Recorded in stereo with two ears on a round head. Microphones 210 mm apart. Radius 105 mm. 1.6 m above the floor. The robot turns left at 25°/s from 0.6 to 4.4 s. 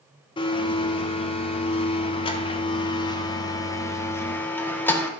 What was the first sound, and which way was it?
A blender, 20° left (ahead or behind).